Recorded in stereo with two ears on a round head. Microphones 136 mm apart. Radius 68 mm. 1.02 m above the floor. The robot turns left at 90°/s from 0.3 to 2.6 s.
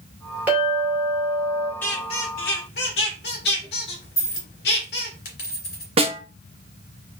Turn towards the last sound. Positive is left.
turn(degrees=-40)  # may be behind; listen again after turning